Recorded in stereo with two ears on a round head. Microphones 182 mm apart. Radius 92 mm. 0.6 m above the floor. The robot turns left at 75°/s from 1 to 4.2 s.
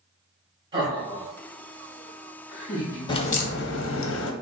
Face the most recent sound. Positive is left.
turn(degrees=70)